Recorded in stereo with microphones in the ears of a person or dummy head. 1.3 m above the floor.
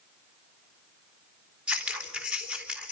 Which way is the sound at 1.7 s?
10° right (ahead or behind).